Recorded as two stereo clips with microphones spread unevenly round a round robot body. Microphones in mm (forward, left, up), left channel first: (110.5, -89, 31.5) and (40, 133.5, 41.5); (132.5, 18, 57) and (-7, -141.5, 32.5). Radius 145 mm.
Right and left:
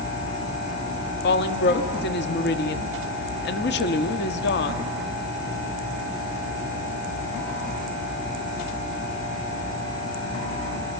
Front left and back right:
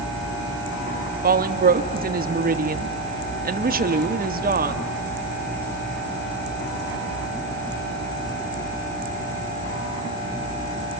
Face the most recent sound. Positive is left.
turn(degrees=-105)